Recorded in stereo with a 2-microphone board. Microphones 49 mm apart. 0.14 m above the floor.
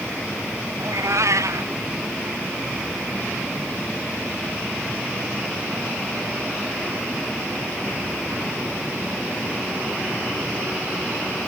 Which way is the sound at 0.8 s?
90° right.